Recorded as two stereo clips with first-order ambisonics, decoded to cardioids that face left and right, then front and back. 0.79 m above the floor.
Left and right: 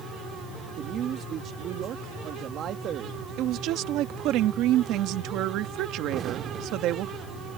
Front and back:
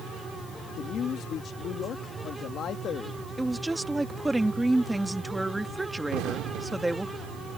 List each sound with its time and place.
0.8 s a man speaking: 45° right
3.4 s a woman speaking: 95° right
6.1 s an explosion: 145° right